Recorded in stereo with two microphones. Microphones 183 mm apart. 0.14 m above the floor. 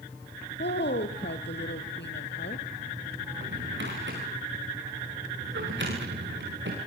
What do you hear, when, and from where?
0.6 s a woman speaking: 75° left (ahead or behind), 3.5 m
3.3 s a drawer: 80° right, 8.5 m